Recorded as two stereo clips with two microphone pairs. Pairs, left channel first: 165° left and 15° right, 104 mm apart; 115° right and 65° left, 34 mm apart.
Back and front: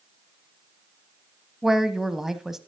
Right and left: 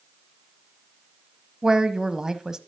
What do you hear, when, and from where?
1.6 s a woman speaking: 65° left, 0.9 m